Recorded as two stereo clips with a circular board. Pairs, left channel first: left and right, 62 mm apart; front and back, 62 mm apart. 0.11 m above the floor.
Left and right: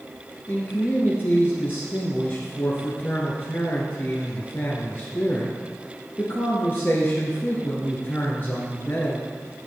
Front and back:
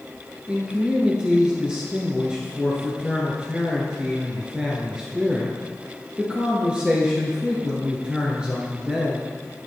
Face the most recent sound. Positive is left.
turn(degrees=115)